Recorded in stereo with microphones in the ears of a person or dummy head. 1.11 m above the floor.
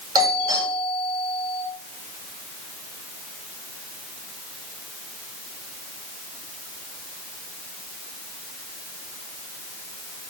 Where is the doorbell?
20° right (ahead or behind), 6 m.